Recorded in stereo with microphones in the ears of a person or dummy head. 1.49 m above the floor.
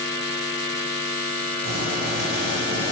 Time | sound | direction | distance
1.6 | boiling | 80° right | 4.5 m